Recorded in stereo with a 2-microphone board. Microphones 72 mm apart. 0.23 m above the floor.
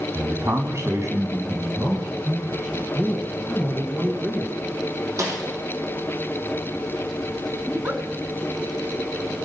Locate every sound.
0.1 s a man speaking: 35° right (ahead or behind), 1.4 m
3.0 s a man speaking: 15° right (ahead or behind), 2 m
5.2 s a snare drum: 45° right (ahead or behind), 5.5 m
7.7 s a giggle: 30° right (ahead or behind), 1.8 m